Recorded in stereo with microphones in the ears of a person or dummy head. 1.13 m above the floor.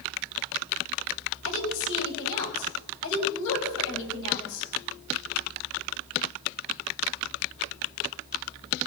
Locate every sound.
1.4 s a woman speaking: 70° left (ahead or behind), 6 m